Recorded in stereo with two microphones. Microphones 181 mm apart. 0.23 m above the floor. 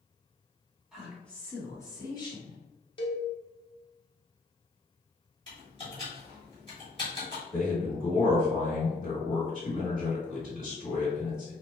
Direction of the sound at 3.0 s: 30° left (ahead or behind).